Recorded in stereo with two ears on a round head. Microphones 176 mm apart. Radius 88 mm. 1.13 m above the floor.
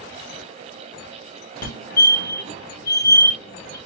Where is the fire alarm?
45° left (ahead or behind), 1.7 m.